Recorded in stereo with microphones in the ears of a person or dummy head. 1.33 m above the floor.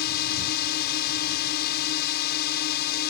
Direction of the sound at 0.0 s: 55° left (ahead or behind).